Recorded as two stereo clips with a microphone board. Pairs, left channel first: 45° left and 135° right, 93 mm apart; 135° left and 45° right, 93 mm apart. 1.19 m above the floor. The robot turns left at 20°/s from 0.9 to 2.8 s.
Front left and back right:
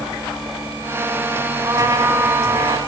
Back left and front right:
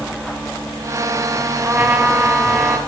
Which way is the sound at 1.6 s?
110° right.